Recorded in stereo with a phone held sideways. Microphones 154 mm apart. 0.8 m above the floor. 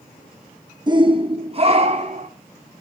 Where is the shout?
30° right (ahead or behind), 1.1 m; by 2.3 s 45° right (ahead or behind), 2.5 m.